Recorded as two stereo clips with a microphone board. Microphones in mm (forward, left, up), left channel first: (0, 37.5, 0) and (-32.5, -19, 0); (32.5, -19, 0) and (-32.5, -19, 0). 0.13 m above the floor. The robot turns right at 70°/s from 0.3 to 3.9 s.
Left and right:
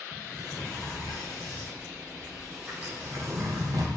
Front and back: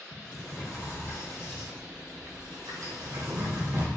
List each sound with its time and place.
0.1 s a sliding door: 5° right, 2.5 m; by 4.0 s 115° right, 2.5 m